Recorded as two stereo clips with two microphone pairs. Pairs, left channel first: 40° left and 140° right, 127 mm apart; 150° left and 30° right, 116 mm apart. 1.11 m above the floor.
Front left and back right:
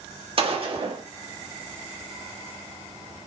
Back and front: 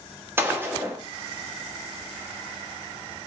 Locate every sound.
0.4 s a gunshot: 100° right, 1.0 m